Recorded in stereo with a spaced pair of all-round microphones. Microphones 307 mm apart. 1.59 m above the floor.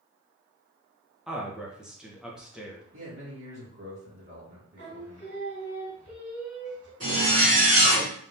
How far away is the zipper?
About 1.9 m.